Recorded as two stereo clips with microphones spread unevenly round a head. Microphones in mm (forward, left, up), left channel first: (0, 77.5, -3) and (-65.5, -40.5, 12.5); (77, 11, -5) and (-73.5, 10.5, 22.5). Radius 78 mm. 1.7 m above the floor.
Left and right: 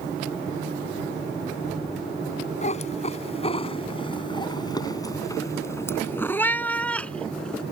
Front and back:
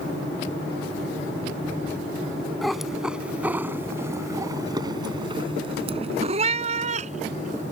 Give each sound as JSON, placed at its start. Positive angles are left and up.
{"t": 2.6, "sound": "a cat meowing", "azimuth_deg": 95}